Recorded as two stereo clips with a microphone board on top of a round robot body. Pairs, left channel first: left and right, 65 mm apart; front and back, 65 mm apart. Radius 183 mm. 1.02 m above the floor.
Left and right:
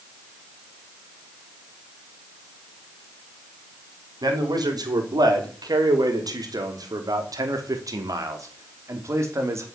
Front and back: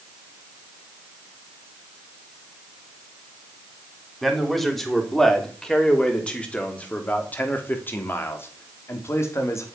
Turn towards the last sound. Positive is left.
turn(degrees=-45)